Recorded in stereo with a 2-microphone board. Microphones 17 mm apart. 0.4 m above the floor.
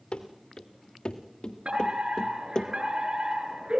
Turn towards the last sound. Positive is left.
turn(degrees=-70)  # may be behind; listen again after turning